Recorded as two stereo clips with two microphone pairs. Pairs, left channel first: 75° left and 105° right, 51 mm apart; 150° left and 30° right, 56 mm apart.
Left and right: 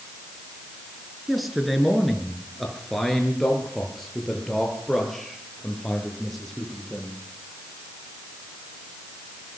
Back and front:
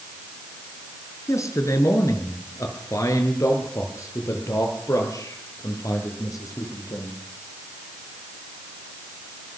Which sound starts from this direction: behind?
A man speaking, at 1.3 s.